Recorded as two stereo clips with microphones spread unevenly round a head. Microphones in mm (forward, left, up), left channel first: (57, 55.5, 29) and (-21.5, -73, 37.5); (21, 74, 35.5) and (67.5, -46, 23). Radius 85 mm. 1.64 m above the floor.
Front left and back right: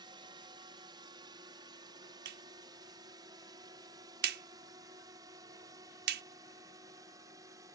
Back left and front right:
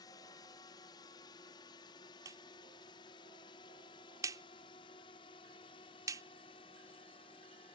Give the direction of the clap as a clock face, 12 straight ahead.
5 o'clock.